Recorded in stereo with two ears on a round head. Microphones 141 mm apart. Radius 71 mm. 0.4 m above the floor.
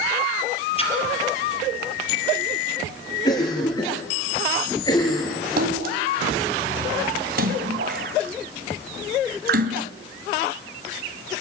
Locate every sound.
0.8 s a splash: 35° left (ahead or behind), 4 m
3.2 s a cough: 25° left (ahead or behind), 6 m
5.6 s a splash: 65° right (ahead or behind), 2.5 m